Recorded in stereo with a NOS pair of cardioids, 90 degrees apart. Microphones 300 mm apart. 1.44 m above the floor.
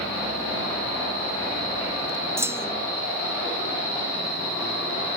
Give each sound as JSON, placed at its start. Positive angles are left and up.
{"t": 2.4, "sound": "a clunk", "azimuth_deg": -10}